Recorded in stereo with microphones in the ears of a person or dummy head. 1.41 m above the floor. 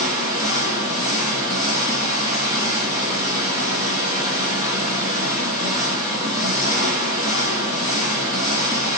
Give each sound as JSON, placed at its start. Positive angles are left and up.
{"t": 0.0, "sound": "an engine running", "side_deg": -25, "distance_m": 1.5}